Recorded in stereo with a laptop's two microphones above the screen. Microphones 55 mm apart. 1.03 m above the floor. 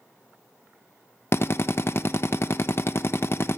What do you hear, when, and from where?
1.3 s a drill: 50° left (ahead or behind), 0.8 m